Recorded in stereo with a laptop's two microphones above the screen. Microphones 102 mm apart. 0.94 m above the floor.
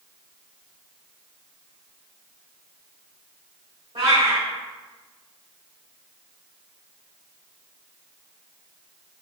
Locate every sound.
4.0 s a cat meowing: 65° right (ahead or behind), 1.0 m